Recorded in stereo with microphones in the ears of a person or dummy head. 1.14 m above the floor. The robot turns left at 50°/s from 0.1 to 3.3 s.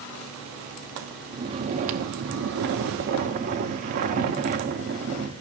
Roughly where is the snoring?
Ahead right.